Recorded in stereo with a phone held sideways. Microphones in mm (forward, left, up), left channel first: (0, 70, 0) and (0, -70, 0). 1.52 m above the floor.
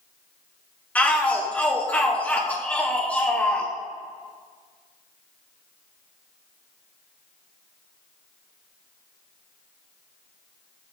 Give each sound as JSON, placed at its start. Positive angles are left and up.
{"t": 0.9, "sound": "a shout", "side_deg": 10, "distance_m": 1.0}